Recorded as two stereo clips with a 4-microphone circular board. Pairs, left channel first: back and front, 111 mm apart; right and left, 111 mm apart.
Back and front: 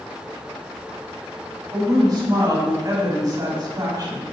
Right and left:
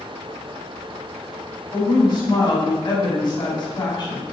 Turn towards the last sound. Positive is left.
turn(degrees=-50)